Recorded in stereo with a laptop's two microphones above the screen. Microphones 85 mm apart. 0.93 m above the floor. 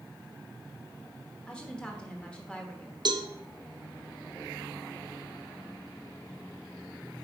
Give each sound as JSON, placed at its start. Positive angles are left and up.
{"t": 1.5, "sound": "a woman speaking", "side_deg": 10, "distance_m": 1.0}
{"t": 3.0, "sound": "a cowbell", "side_deg": -55, "distance_m": 0.6}